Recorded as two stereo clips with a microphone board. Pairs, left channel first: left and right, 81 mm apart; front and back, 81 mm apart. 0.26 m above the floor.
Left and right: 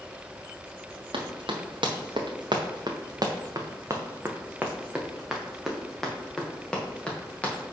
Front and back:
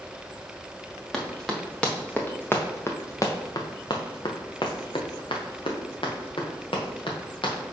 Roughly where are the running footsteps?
Right.